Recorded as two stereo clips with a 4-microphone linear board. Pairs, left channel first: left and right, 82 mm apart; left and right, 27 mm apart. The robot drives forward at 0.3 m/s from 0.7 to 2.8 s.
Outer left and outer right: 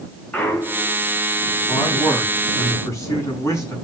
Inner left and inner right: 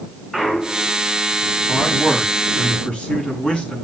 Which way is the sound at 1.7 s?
40° left (ahead or behind).